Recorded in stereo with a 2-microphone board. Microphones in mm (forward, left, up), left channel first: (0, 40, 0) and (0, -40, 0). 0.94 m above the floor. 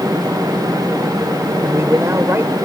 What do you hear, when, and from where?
1.6 s a man speaking: 35° right (ahead or behind)